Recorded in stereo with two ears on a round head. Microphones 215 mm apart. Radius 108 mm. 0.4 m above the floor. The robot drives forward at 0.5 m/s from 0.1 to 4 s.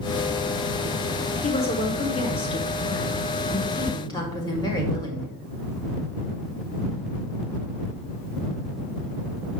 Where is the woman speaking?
25° left (ahead or behind), 1.4 m; by 5.3 s 15° left (ahead or behind), 1.9 m.